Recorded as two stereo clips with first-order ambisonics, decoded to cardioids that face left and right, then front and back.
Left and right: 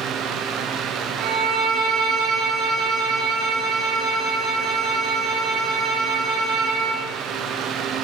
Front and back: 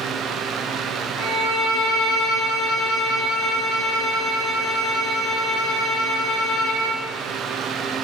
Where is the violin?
40° right, 3.5 m.